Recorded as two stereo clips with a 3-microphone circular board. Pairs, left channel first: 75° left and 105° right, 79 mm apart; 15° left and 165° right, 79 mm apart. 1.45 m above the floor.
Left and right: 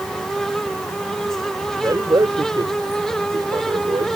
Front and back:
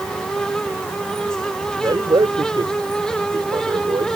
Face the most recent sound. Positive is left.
turn(degrees=-135)